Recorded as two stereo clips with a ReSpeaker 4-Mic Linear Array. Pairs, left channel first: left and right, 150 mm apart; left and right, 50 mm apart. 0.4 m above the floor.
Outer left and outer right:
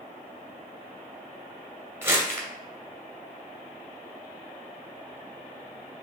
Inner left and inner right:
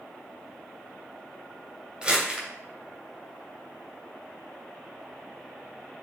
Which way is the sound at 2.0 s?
15° right (ahead or behind).